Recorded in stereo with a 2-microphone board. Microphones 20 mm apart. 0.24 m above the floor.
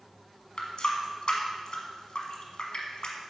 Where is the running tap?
55° left (ahead or behind), 1.2 m.